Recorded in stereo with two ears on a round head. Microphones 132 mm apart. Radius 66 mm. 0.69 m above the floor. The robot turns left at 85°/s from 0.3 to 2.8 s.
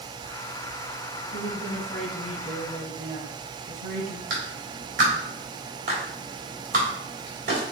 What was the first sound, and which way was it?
A woman speaking, 55° left.